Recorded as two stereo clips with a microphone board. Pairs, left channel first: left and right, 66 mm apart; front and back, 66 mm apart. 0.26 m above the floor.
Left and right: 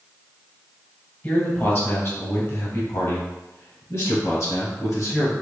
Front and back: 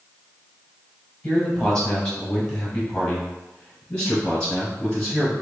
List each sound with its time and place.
1.2 s a man speaking: 70° left, 1.3 m; by 5.3 s 75° left, 3 m